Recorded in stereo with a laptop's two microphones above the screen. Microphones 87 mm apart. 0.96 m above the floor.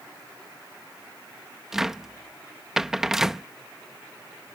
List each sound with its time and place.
1.7 s a cupboard door: 5° right (ahead or behind)